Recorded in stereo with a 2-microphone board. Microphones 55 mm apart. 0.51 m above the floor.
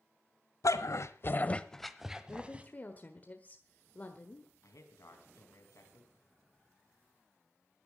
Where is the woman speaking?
30° left (ahead or behind), 1.3 m.